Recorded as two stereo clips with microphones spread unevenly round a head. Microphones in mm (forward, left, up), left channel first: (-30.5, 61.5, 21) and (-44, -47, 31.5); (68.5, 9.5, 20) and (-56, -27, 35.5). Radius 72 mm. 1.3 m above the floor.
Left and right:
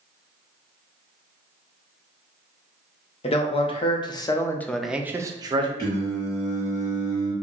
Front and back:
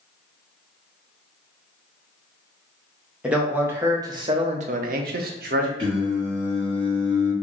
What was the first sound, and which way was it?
A man speaking, 110° left.